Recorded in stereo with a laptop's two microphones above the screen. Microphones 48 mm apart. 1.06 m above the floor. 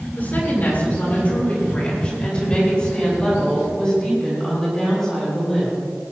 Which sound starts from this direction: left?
A woman speaking, at 0.2 s.